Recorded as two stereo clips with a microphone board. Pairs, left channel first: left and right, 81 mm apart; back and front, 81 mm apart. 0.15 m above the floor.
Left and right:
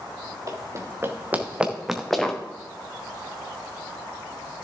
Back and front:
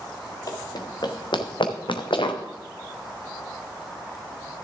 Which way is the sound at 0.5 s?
140° right.